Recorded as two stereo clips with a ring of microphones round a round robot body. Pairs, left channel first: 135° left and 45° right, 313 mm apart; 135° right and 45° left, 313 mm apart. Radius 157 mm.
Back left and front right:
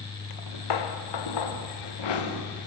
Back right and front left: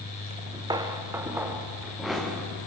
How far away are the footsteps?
About 2.5 m.